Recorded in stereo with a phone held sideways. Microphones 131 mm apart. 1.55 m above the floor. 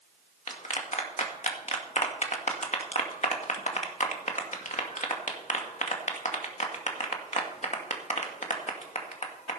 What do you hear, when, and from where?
0.5 s a clap: 60° left (ahead or behind), 2.0 m